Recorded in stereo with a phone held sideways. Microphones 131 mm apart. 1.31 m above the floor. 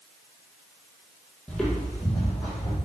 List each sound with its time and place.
1.5 s footsteps: 5° left (ahead or behind), 1.8 m